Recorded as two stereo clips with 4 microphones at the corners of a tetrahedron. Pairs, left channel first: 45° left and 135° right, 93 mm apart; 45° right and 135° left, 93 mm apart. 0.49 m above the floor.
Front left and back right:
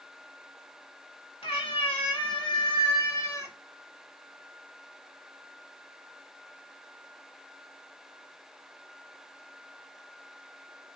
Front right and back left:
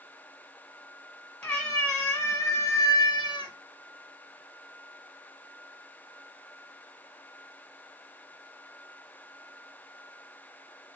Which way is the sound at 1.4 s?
35° left.